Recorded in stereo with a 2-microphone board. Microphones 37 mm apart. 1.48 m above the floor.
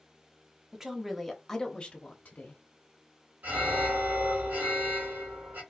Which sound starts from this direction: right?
An alarm, at 3.4 s.